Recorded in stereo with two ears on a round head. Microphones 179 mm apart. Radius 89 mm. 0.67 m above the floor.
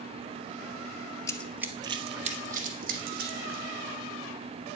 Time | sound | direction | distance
1.3 | running footsteps | 15° left (ahead or behind) | 0.7 m